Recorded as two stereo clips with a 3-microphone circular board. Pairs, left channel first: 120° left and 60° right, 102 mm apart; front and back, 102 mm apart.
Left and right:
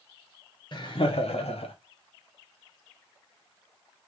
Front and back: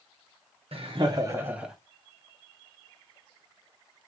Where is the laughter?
155° left, 1.0 m; by 1.8 s 95° left, 1.1 m.